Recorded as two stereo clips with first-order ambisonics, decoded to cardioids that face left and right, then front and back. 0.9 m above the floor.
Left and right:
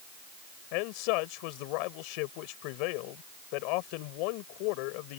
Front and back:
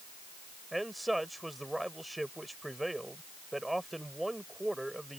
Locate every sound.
0.7 s a man speaking: 95° left